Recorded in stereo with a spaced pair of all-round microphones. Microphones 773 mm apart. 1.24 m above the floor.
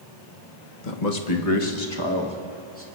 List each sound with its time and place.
0.8 s a man speaking: 70° left (ahead or behind), 1.3 m; by 2.9 s 15° left (ahead or behind), 2 m